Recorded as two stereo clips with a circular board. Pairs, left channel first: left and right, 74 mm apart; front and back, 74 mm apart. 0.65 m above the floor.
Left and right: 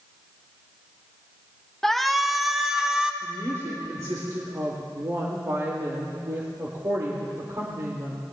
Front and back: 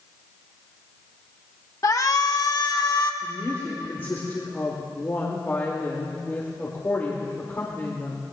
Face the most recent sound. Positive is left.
turn(degrees=-60)